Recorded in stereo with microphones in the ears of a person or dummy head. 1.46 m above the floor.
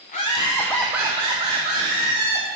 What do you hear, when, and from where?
0.1 s laughter: 35° left (ahead or behind), 0.7 m; by 2.5 s 50° right (ahead or behind), 1.3 m